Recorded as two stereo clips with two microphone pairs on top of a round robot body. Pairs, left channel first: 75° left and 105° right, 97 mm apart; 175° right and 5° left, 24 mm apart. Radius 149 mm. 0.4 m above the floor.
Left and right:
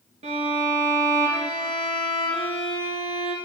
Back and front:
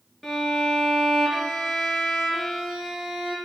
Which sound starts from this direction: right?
A violin, at 0.2 s.